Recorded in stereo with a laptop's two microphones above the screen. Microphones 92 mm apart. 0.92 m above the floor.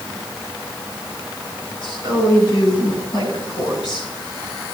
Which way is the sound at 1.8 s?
60° left (ahead or behind).